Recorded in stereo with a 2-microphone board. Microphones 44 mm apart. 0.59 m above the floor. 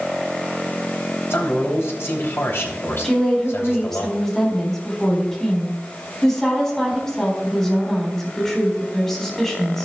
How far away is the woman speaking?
About 4 m.